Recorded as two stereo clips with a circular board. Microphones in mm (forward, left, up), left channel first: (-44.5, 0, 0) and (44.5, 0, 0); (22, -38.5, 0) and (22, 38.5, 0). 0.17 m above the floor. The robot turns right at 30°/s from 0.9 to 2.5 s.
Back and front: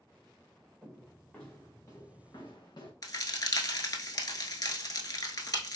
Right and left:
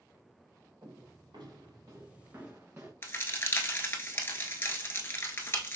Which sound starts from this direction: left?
Footsteps, at 0.8 s.